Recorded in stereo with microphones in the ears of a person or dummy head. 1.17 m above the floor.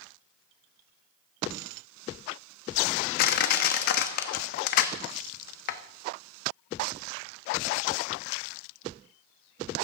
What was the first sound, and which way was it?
Crushing, 55° left (ahead or behind).